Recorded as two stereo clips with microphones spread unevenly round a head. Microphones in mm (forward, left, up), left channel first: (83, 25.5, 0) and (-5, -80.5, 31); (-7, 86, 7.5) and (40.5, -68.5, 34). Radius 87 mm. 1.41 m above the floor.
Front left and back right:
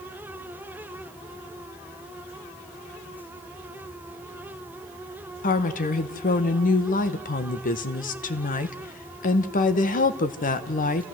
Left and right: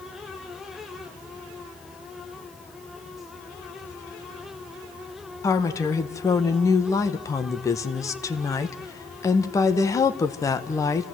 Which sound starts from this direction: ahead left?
A woman speaking, at 5.4 s.